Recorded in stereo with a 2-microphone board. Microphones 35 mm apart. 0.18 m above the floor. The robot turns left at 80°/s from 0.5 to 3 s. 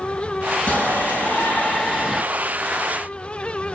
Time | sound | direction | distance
0.7 | a shout | 130° left | 3 m